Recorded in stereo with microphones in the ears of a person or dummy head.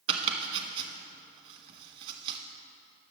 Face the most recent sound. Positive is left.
turn(degrees=-30)  # may be behind; listen again after turning